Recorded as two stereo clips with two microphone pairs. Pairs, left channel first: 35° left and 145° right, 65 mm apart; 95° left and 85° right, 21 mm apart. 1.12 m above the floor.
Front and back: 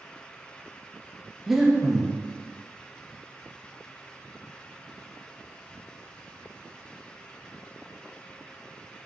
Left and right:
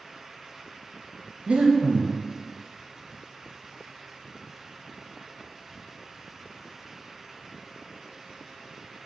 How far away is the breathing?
About 0.9 m.